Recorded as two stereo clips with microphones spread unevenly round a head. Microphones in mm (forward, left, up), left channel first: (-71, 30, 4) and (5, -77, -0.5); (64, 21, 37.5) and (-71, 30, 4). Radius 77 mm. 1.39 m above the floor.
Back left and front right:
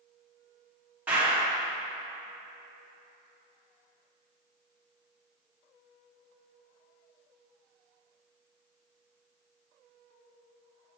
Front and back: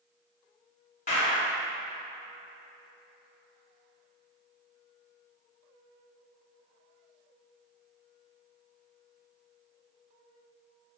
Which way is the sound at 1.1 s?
30° left.